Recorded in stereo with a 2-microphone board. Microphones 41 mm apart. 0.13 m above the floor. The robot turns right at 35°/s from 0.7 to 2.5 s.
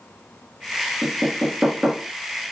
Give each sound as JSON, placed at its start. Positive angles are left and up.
{"t": 1.0, "sound": "knocking", "side_deg": -30, "distance_m": 1.6}